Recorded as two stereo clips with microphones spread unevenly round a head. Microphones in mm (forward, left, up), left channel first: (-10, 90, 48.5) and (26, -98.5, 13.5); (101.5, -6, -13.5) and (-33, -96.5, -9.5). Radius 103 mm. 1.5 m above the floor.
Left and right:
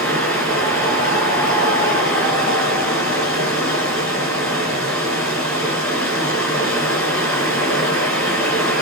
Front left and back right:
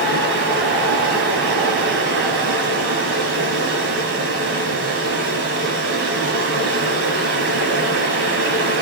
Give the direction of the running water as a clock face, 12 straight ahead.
6 o'clock.